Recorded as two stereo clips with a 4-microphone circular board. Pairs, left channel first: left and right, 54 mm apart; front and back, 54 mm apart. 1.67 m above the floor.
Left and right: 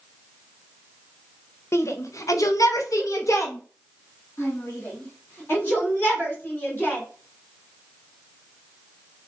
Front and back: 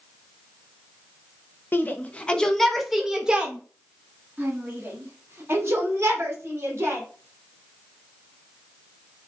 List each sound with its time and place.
1.7 s a shout: 55° left, 0.9 m; by 7.0 s 140° left, 3 m